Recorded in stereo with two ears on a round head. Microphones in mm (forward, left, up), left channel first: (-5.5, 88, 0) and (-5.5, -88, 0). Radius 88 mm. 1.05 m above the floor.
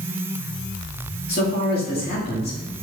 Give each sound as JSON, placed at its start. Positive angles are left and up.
{"t": 1.3, "sound": "a man speaking", "side_deg": 50, "distance_m": 2.0}